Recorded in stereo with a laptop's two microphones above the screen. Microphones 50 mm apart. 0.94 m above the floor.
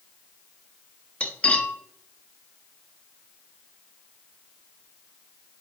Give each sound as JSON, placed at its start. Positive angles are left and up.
{"t": 1.2, "sound": "cutlery clinking", "side_deg": 30, "distance_m": 0.8}